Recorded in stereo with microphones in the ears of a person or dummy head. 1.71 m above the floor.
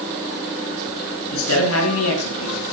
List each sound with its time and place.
1.3 s a man speaking: 80° left, 8.5 m; by 2.7 s 85° left, 7.5 m